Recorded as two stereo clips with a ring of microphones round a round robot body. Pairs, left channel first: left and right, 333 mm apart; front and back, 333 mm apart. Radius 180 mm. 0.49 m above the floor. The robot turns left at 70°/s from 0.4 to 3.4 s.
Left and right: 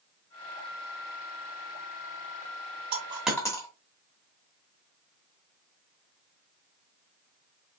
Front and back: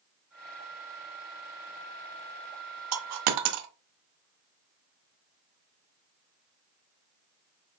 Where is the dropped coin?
155° right, 0.7 m; by 3.7 s 170° left, 0.7 m.